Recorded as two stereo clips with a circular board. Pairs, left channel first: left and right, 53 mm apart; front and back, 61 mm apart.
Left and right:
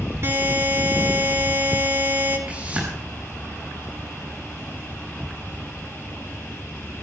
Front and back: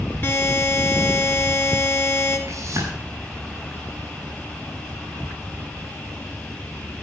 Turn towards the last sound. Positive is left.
turn(degrees=-150)